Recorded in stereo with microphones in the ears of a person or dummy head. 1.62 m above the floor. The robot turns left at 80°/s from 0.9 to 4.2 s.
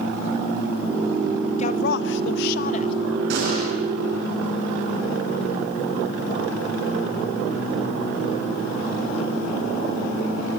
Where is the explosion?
115° right, 10 m; by 3.7 s 145° right, 10 m.